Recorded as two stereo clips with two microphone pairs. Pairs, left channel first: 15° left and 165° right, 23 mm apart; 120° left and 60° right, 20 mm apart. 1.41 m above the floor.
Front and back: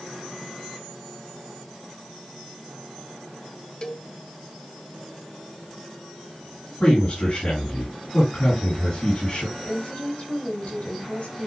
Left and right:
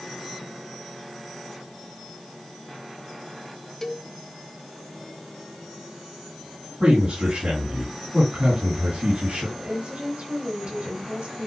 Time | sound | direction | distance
3.8 | a cowbell | 60° left | 1.0 m
6.8 | a man speaking | 45° right | 8 m
9.6 | a woman speaking | 30° right | 8 m